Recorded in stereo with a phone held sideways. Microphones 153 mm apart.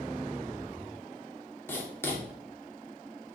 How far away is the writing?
About 2 m.